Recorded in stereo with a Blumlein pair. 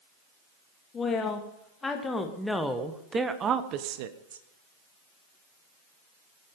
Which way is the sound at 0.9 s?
20° left.